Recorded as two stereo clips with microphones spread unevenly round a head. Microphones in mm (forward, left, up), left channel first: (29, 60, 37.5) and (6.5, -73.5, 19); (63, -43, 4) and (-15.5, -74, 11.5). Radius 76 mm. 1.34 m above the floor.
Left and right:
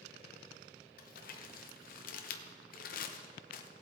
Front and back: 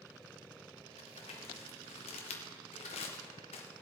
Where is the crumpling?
60° left, 0.9 m.